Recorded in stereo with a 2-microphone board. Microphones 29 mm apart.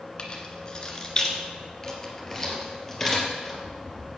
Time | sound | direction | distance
0.2 | keys jangling | 35° left (ahead or behind) | 1.7 m